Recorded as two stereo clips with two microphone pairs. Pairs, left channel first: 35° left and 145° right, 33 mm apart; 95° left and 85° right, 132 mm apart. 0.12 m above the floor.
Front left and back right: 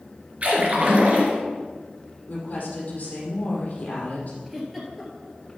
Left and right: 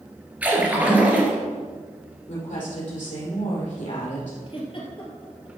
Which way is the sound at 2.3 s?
80° left.